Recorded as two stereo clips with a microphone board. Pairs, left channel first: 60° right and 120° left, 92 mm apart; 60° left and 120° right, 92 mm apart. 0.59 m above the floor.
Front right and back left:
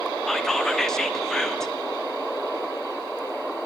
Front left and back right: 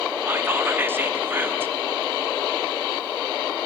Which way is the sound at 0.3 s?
135° right.